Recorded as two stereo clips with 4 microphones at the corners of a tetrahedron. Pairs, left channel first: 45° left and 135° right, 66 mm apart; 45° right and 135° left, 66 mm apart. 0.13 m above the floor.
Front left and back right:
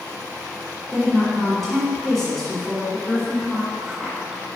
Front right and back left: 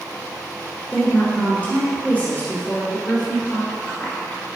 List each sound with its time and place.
0.9 s a woman speaking: 40° right, 1.6 m